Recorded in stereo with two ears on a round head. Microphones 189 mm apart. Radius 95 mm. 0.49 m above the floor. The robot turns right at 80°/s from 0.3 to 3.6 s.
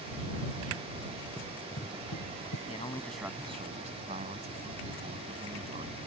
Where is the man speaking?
140° left; by 6.0 s 145° right.